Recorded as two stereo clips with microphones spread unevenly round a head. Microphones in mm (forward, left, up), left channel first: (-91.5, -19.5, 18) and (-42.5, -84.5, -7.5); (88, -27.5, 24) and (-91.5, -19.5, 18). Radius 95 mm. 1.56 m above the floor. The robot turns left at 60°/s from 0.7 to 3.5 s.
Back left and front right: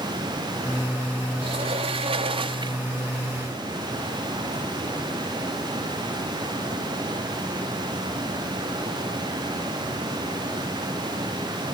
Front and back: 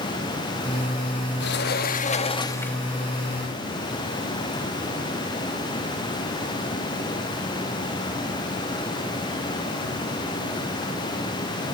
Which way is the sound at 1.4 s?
Straight ahead.